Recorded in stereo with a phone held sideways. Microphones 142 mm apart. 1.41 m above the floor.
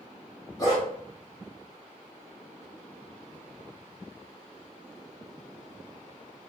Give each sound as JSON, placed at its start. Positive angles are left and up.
{"t": 0.6, "sound": "a dog barking", "side_deg": 25, "distance_m": 0.9}